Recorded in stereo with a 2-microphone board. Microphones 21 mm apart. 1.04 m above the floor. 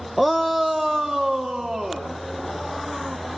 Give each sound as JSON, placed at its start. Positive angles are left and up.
{"t": 0.2, "sound": "a shout", "side_deg": 5, "distance_m": 0.7}